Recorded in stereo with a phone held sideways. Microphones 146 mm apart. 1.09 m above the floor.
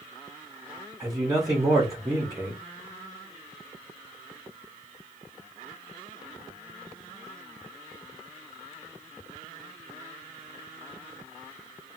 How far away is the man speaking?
About 1.0 m.